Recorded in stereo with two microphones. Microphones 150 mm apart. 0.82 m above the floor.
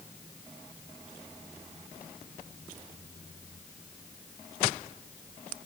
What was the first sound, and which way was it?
Only background noise.